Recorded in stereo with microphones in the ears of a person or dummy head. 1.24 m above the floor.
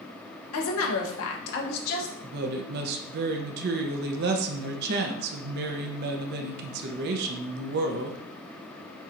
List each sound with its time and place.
0.5 s a woman speaking: 75° left (ahead or behind), 1.0 m; by 2.1 s 55° left (ahead or behind), 1.2 m
2.2 s a woman speaking: 55° right (ahead or behind), 0.6 m